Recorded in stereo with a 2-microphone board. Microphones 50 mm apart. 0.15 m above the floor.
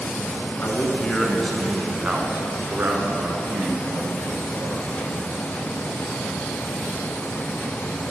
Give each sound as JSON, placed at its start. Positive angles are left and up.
{"t": 0.6, "sound": "a man speaking", "side_deg": 35, "distance_m": 1.3}